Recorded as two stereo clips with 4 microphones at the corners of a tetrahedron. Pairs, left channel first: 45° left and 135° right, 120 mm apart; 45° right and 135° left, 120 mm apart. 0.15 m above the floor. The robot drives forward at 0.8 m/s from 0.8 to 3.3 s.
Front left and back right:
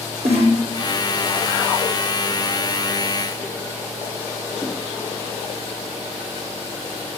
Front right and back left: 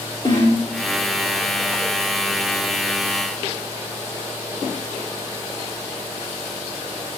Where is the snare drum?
100° right, 8.5 m.